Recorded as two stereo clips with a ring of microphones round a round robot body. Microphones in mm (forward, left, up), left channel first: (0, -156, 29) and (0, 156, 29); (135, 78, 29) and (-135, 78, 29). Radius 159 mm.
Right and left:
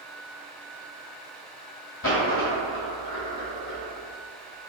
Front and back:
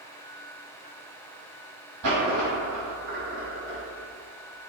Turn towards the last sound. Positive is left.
turn(degrees=-140)